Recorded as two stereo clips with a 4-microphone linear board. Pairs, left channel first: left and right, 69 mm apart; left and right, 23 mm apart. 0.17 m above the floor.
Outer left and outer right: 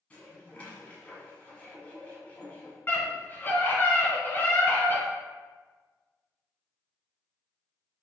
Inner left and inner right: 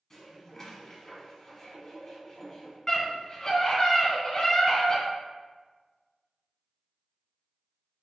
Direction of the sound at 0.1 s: 20° left (ahead or behind).